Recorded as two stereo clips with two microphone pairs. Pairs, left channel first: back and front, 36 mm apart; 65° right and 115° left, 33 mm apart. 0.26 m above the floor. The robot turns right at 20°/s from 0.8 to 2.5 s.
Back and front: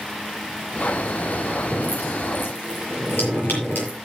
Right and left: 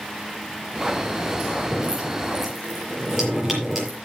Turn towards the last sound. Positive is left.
turn(degrees=-160)